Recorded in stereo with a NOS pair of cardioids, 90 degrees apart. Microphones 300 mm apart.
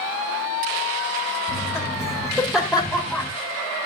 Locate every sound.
1.5 s laughter: straight ahead, 6 m